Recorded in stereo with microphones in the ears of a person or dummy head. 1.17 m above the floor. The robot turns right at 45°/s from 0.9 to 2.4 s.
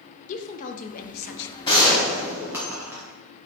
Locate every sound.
0.3 s a woman speaking: 45° left (ahead or behind), 0.5 m; by 1.6 s 70° left (ahead or behind), 0.5 m
1.6 s a gunshot: 155° left, 1.2 m; by 3.0 s 175° right, 1.2 m